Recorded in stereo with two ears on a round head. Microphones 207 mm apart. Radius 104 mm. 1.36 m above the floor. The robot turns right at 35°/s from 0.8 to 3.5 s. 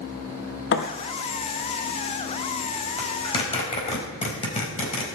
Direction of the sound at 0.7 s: 50° left (ahead or behind).